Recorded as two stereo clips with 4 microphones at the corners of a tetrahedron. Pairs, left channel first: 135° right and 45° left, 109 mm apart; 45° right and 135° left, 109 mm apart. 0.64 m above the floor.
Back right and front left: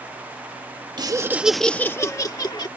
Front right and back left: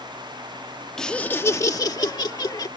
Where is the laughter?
35° left; by 2.7 s 90° right.